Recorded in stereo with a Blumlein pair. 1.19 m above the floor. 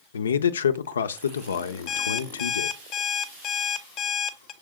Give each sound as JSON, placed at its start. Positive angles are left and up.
{"t": 0.1, "sound": "a man speaking", "azimuth_deg": 70, "distance_m": 0.7}
{"t": 1.9, "sound": "an alarm clock", "azimuth_deg": 35, "distance_m": 0.8}